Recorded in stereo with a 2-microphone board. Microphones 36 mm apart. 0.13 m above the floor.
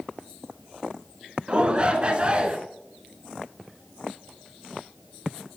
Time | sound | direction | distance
1.5 | a shout | 30° right (ahead or behind) | 1.2 m